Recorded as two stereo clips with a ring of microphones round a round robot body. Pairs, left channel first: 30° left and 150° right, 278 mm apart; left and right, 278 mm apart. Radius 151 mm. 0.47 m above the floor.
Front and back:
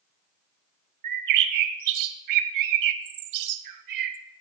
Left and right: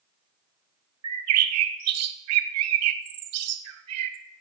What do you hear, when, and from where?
1.0 s a bird: 125° right, 0.8 m